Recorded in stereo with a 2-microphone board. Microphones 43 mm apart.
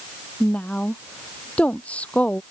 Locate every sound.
0.4 s a woman speaking: 30° left (ahead or behind)